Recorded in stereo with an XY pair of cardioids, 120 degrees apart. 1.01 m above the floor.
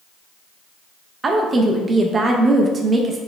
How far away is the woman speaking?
About 0.5 m.